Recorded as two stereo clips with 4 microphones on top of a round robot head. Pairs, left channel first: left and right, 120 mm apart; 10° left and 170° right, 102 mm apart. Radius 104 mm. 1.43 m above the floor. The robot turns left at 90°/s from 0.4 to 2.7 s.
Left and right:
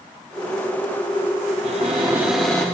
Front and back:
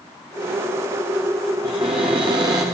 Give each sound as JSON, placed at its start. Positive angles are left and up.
{"t": 1.6, "sound": "a cupboard door", "azimuth_deg": -110, "distance_m": 1.0}